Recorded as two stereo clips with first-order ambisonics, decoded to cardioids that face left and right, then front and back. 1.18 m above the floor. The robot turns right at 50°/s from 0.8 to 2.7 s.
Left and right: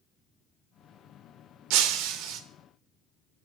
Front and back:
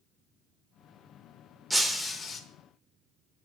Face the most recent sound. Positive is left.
turn(degrees=-45)